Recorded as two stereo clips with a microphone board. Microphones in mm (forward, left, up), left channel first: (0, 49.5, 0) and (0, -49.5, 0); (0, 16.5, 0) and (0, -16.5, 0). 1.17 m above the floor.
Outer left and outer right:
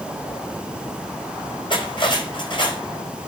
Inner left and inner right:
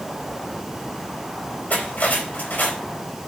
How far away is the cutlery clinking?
About 4 m.